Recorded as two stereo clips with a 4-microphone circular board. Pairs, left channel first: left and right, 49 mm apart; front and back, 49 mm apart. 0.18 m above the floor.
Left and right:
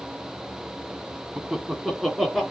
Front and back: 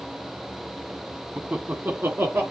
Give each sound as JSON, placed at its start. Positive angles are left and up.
{"t": 1.4, "sound": "laughter", "azimuth_deg": -160, "distance_m": 1.3}